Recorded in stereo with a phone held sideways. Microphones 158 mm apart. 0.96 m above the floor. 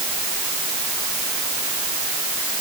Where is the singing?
I don't hear singing.